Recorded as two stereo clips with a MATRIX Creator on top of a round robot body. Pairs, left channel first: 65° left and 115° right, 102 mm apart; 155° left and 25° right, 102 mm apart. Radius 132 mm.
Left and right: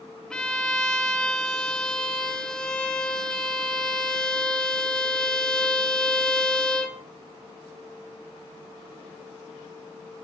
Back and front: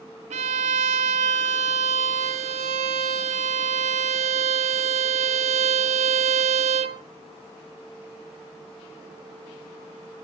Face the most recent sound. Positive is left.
turn(degrees=-15)